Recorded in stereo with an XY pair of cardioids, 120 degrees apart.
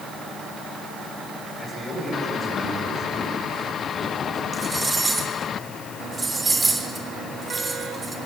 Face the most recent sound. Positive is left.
turn(degrees=-15)